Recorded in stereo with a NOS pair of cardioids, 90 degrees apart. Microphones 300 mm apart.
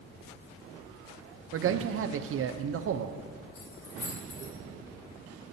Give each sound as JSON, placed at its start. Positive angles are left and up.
{"t": 1.5, "sound": "a man speaking", "azimuth_deg": -45, "distance_m": 0.6}
{"t": 3.5, "sound": "keys jangling", "azimuth_deg": 70, "distance_m": 3.0}